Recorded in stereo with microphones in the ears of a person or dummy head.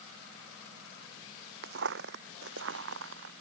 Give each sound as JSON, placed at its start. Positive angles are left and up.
{"t": 1.6, "sound": "footsteps", "side_deg": -60}